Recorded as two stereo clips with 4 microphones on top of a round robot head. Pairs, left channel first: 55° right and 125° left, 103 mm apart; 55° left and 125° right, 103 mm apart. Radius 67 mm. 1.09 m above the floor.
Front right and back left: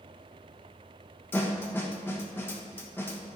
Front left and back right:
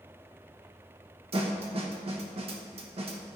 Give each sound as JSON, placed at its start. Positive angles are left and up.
{"t": 1.3, "sound": "a snare drum", "azimuth_deg": -120, "distance_m": 1.1}